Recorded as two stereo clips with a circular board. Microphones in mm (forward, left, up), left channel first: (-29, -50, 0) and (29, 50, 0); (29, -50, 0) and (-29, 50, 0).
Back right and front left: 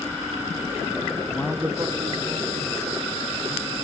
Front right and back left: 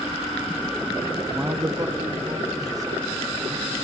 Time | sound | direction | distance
1.3 | a man speaking | 160° right | 0.5 m